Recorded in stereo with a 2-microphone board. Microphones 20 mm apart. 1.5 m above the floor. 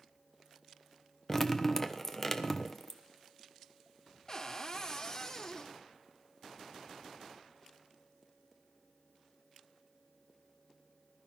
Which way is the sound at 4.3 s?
30° left (ahead or behind).